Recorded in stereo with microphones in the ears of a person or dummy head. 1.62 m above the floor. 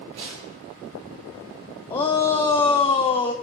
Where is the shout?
25° left (ahead or behind), 0.8 m.